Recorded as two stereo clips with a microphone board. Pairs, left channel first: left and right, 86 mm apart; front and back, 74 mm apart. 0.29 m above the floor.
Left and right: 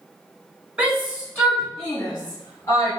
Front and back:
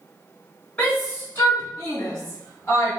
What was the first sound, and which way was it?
A shout, 30° right.